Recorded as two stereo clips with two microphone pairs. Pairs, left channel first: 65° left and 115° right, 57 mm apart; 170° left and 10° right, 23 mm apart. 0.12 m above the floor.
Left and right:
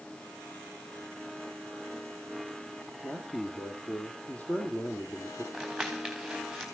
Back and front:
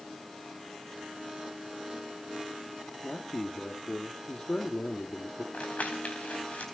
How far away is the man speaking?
About 3.5 m.